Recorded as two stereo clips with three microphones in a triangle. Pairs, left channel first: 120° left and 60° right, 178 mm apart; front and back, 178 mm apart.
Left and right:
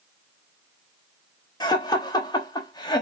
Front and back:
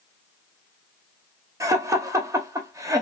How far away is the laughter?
About 0.8 m.